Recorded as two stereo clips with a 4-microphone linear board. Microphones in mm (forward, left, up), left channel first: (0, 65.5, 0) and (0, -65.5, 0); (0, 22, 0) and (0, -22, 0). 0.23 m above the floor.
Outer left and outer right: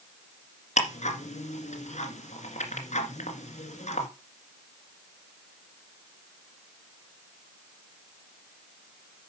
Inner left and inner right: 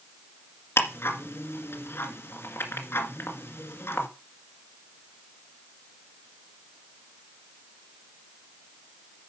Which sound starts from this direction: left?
Ticking, at 0.8 s.